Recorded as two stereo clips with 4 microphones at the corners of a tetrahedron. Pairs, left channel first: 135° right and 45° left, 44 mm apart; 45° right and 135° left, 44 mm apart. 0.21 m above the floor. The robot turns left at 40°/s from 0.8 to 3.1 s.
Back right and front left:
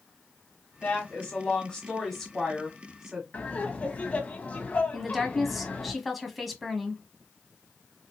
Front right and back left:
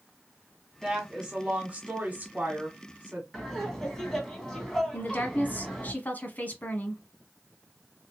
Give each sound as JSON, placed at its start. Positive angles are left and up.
{"t": 0.8, "sound": "a woman speaking", "azimuth_deg": -155, "distance_m": 1.3}
{"t": 3.3, "sound": "laughter", "azimuth_deg": -120, "distance_m": 1.5}
{"t": 4.9, "sound": "a woman speaking", "azimuth_deg": -40, "distance_m": 1.2}